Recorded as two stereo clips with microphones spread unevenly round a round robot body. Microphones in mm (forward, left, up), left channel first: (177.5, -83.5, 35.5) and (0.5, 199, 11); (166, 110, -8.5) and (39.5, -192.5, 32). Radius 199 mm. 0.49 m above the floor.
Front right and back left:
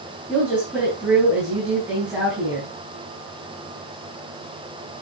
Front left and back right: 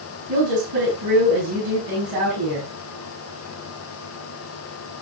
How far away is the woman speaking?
About 5.5 m.